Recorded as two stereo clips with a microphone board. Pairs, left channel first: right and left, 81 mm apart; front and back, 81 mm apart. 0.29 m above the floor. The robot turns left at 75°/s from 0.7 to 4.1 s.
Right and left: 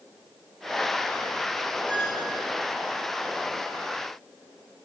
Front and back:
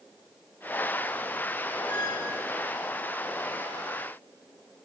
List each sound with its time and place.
1.9 s a squeak: 10° right, 3.5 m; by 2.3 s 40° right, 3.5 m